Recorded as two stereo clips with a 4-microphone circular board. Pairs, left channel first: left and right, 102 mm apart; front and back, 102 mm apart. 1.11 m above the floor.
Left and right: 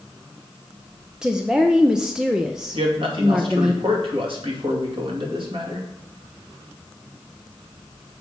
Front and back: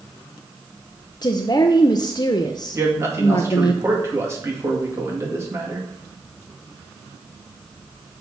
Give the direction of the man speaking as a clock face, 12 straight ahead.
4 o'clock.